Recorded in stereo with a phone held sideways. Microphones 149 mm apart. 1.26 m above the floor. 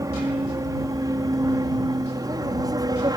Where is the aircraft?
20° right (ahead or behind); by 3.2 s 25° right (ahead or behind).